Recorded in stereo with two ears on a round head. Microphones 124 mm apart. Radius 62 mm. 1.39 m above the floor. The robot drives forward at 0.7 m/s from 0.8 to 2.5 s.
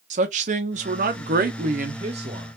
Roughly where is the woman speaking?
Right.